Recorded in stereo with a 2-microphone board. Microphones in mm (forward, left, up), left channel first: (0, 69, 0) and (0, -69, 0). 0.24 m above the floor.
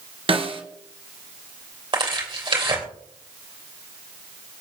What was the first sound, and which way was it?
A snare drum, 40° right (ahead or behind).